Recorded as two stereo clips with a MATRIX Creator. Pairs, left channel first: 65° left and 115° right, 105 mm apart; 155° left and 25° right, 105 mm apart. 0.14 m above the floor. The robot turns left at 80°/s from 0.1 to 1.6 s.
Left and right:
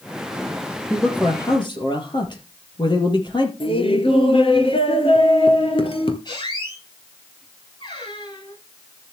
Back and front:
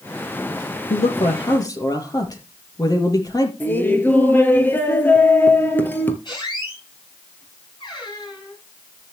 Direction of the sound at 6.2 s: 115° left.